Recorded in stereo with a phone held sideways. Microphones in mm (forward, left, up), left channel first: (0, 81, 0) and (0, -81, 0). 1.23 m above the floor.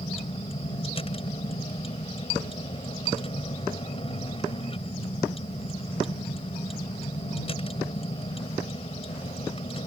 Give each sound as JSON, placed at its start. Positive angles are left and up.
{"t": 0.0, "sound": "a vehicle", "side_deg": 35}